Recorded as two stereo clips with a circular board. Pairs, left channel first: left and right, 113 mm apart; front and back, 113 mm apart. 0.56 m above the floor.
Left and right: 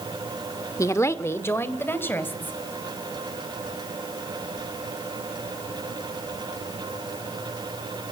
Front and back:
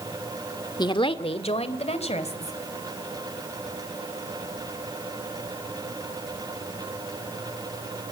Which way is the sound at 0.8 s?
35° left.